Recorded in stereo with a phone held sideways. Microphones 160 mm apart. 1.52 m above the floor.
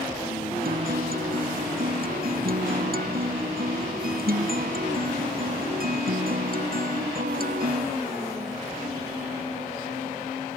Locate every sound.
0.7 s a guitar: 70° right (ahead or behind)